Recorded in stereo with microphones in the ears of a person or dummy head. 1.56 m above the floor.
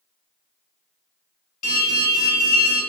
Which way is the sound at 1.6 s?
50° left (ahead or behind).